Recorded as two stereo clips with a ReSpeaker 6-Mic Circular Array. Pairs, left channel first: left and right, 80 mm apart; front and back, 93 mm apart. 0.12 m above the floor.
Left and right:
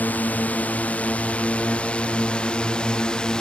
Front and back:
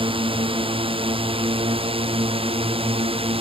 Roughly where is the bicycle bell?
No bicycle bell in this recording.